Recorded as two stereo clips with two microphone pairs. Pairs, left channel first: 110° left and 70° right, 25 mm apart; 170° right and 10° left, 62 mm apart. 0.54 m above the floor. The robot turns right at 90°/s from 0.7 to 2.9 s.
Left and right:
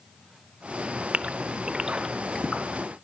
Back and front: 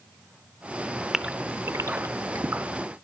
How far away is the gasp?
About 0.9 m.